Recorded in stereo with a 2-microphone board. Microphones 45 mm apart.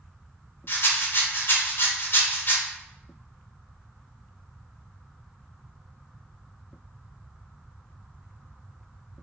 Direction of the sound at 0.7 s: 55° left (ahead or behind).